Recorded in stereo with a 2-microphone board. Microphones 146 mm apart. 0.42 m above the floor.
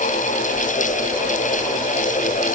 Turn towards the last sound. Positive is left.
No sound to turn to.